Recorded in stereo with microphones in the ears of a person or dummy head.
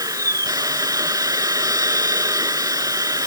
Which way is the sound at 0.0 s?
20° right (ahead or behind).